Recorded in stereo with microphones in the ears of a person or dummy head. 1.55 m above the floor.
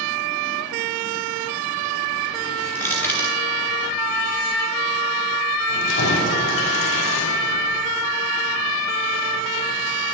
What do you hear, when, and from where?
2.8 s crushing: 10° left (ahead or behind), 2 m
5.7 s keys jangling: 75° left (ahead or behind), 5 m